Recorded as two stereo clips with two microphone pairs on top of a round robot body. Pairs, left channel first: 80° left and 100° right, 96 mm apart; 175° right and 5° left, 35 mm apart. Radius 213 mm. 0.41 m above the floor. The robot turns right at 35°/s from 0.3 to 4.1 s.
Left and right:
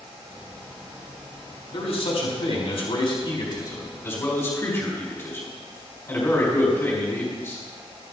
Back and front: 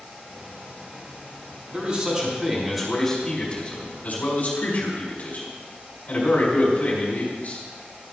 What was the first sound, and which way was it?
A man speaking, 60° left.